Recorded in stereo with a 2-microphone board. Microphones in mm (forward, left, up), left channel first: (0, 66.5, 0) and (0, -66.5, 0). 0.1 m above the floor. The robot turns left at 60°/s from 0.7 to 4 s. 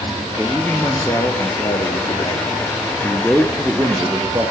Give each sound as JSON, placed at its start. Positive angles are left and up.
{"t": 0.4, "sound": "a man speaking", "azimuth_deg": 165, "distance_m": 1.6}